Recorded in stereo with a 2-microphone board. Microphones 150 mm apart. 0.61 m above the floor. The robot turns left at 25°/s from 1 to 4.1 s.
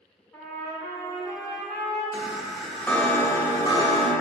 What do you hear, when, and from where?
0.3 s a trumpet: 15° left (ahead or behind), 1.3 m; by 2.0 s 40° left (ahead or behind), 1.3 m
2.1 s a chime: 170° right, 0.5 m; by 4.1 s 140° left, 0.5 m